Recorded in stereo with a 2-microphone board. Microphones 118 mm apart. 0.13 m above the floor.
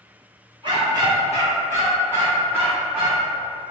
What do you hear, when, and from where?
0.6 s a dog barking: 40° right (ahead or behind), 1.7 m; by 3.3 s 10° right (ahead or behind), 3 m